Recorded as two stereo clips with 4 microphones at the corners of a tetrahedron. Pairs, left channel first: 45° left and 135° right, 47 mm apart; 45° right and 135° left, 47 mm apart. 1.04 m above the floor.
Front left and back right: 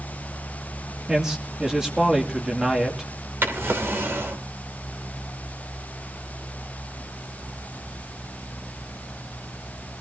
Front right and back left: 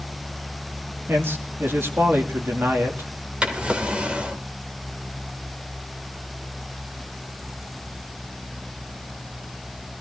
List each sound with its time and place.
1.1 s a man speaking: 150° left, 2.5 m
3.4 s a drawer: 160° right, 2.5 m